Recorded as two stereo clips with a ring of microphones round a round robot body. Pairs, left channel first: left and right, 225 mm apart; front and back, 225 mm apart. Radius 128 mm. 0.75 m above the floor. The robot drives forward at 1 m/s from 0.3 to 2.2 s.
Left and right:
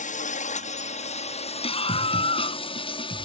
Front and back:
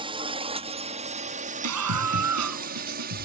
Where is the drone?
120° left; by 3.2 s 150° left.